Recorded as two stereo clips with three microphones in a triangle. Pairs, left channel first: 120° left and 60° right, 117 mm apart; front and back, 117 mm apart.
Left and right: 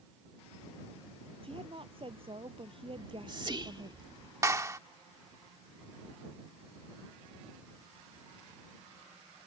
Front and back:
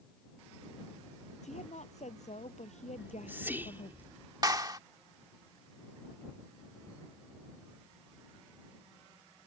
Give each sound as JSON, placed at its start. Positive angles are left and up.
{"t": 1.4, "sound": "a woman speaking", "azimuth_deg": -20}
{"t": 3.0, "sound": "whispering", "azimuth_deg": -110}
{"t": 4.4, "sound": "a clap", "azimuth_deg": -125}